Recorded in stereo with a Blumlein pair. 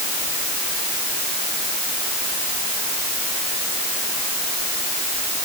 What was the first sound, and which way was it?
Only background noise.